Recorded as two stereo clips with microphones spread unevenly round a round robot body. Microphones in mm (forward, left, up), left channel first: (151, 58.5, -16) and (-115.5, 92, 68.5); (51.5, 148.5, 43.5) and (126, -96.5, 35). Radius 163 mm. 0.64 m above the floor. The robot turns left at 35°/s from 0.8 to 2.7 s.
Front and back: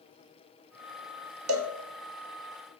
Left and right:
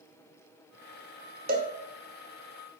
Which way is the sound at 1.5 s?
135° right.